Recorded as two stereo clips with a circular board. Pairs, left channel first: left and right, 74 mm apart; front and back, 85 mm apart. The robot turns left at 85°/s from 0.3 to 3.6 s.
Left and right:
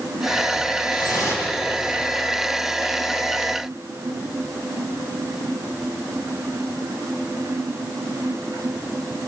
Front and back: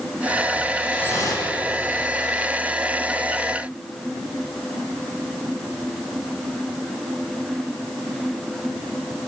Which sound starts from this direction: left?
Dripping, at 0.9 s.